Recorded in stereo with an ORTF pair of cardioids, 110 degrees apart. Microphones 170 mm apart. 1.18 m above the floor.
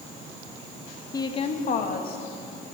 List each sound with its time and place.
1.1 s a woman speaking: 20° left, 1.4 m; by 2.2 s 65° left, 2.5 m